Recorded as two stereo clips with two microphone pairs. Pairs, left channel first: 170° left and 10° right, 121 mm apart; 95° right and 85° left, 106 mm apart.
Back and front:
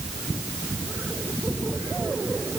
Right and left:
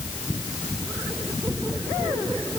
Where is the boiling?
No boiling in this recording.